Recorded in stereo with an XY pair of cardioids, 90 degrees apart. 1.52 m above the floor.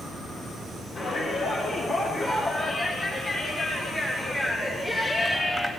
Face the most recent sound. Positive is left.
turn(degrees=10)